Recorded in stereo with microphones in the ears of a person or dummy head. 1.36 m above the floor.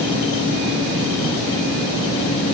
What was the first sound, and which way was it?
Only background noise.